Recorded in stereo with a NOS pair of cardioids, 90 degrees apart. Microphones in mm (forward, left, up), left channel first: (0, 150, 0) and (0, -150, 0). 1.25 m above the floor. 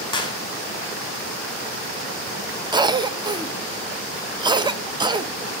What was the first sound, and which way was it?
A clap, 15° left.